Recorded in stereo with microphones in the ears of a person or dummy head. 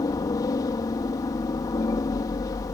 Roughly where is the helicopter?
Centre.